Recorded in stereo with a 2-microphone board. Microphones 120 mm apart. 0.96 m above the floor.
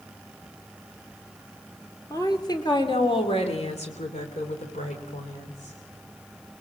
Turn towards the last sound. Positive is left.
turn(degrees=85)